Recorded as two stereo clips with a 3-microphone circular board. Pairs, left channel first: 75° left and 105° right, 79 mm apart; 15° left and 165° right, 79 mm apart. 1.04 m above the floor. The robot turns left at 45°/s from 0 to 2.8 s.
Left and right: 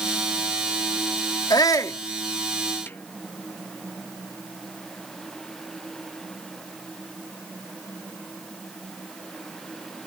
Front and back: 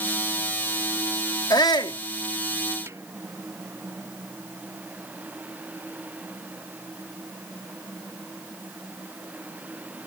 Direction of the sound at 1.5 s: 45° left.